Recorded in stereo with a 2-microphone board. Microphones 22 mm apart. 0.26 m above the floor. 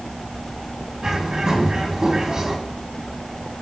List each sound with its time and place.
1.0 s a bird: 35° right (ahead or behind), 2.5 m